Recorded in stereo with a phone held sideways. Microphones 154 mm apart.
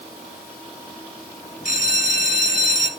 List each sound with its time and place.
1.6 s a bell: 60° left (ahead or behind), 1.3 m